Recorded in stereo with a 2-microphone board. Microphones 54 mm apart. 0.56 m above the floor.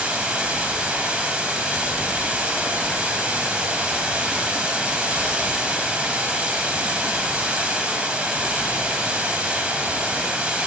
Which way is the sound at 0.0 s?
25° right (ahead or behind).